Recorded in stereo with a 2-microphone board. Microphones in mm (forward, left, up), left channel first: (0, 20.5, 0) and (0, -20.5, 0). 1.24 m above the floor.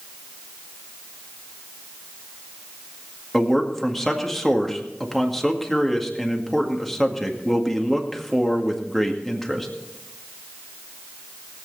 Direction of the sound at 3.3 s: 5° left (ahead or behind).